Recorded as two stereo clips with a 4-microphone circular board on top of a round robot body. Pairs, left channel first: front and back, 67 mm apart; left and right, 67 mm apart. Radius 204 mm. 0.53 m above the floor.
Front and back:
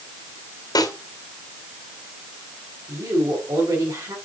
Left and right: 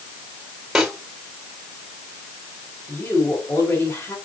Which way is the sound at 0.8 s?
5° right.